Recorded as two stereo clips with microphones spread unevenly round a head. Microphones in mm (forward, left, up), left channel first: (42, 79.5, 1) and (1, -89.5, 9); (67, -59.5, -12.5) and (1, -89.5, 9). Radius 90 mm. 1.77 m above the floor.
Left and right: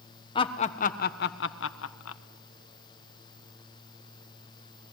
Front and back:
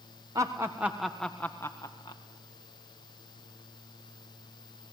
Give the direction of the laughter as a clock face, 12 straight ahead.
7 o'clock.